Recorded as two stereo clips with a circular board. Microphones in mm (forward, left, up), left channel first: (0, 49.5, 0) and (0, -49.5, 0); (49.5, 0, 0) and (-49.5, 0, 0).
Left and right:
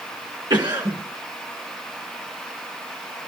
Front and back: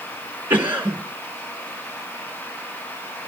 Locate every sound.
0.5 s a cough: 115° right, 2.5 m